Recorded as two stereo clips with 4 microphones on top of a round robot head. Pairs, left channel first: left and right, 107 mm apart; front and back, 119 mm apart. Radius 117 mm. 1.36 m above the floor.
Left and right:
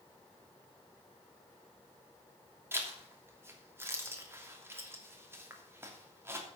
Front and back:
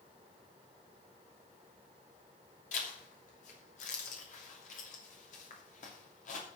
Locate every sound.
2.7 s a zipper: 20° right, 3 m